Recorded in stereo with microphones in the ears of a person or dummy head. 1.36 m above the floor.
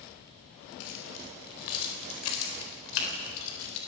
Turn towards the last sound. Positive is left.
turn(degrees=85)